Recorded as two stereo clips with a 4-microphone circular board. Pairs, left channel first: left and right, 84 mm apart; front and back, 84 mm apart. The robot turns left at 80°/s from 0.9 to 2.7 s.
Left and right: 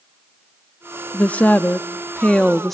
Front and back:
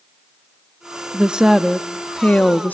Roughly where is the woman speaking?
Behind left.